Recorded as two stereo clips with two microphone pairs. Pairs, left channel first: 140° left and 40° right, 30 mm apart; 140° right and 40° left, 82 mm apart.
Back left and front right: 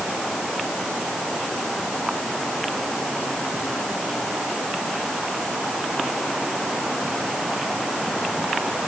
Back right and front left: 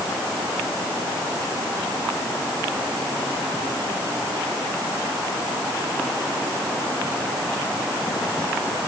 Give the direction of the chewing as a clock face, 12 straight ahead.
I don't hear chewing.